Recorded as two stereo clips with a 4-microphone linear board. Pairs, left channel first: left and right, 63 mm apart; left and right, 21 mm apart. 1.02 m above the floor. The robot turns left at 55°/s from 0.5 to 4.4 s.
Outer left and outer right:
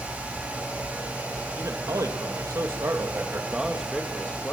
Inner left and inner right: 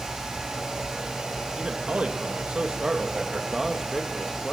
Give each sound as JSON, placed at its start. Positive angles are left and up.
{"t": 1.6, "sound": "a man speaking", "azimuth_deg": -50, "distance_m": 1.7}